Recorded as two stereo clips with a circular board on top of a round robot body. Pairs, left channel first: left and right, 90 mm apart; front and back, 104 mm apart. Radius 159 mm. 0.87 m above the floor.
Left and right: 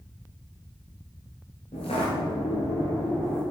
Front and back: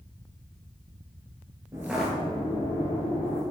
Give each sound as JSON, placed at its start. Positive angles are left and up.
{"t": 1.7, "sound": "footsteps", "azimuth_deg": 115, "distance_m": 1.1}